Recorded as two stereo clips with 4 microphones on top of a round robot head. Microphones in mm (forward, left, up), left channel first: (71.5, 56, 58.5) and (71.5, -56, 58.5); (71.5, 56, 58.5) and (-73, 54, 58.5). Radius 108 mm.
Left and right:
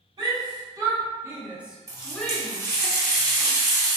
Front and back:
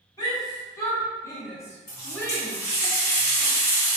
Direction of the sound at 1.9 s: 35° right.